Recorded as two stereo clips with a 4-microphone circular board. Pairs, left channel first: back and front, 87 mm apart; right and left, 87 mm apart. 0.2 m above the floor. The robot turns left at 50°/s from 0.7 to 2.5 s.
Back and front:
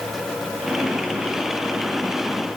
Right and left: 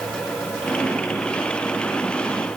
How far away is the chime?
I don't hear a chime.